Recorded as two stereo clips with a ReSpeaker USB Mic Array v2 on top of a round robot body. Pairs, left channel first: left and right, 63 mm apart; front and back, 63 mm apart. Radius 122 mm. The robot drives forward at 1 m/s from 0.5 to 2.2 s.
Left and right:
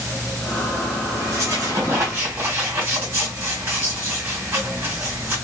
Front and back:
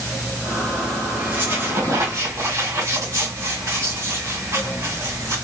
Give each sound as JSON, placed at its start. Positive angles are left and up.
{"t": 1.2, "sound": "a squeak", "azimuth_deg": -120, "distance_m": 1.9}